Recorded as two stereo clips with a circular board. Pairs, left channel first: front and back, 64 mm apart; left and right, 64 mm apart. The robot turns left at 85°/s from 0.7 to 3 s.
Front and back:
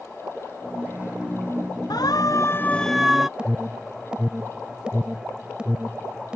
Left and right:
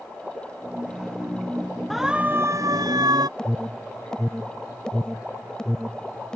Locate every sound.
1.9 s a siren: 5° left; by 3.3 s 95° right
3.4 s an alarm: 140° left